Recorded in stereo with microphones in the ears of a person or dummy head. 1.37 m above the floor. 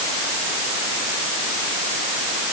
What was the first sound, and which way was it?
Only background noise.